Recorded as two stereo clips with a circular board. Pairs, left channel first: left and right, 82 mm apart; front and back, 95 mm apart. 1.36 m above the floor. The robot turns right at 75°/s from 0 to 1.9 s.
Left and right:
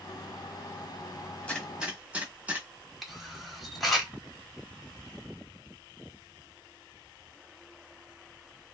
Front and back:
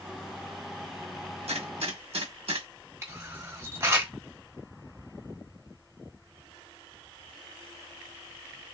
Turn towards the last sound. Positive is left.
turn(degrees=180)